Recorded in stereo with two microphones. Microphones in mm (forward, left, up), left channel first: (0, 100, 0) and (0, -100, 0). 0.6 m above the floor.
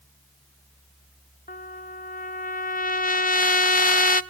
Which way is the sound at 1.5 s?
45° left (ahead or behind).